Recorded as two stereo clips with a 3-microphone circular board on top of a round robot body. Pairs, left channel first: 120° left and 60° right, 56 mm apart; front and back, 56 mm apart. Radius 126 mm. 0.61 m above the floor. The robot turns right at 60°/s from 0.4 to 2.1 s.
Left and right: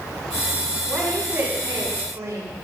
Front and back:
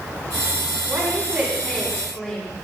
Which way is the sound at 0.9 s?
150° right.